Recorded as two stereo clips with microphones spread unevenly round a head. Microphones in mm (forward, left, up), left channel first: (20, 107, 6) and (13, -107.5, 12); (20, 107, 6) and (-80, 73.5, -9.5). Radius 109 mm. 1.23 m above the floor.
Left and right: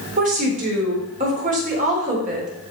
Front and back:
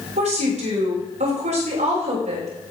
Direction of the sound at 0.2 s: 150° right.